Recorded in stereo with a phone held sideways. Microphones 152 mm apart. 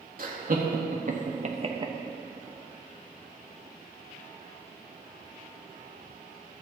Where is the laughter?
60° right (ahead or behind), 1.7 m; by 1.9 s 25° right (ahead or behind), 0.8 m.